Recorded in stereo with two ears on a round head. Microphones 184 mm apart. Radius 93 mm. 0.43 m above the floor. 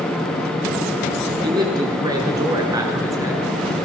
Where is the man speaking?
20° right (ahead or behind), 7 m; by 3.8 s 15° right (ahead or behind), 5.5 m.